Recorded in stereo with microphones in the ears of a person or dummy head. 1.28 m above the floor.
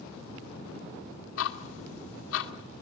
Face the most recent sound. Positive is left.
turn(degrees=80)